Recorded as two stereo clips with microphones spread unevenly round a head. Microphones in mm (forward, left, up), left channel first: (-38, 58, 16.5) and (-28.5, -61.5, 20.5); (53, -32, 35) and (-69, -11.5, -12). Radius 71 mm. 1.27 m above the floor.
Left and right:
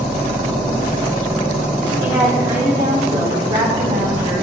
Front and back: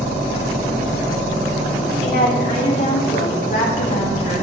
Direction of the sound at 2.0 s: 20° right.